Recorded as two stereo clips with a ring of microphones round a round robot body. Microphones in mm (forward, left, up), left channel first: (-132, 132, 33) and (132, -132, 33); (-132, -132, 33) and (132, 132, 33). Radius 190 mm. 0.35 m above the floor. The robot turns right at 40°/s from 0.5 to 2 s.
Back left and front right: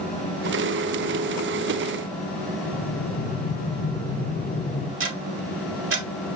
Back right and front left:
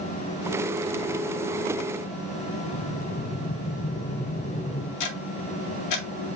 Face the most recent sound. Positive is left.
turn(degrees=-100)